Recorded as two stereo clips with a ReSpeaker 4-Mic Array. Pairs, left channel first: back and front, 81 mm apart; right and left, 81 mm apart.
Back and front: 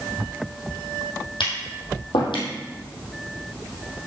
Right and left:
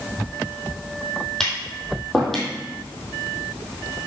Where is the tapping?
175° right, 3 m.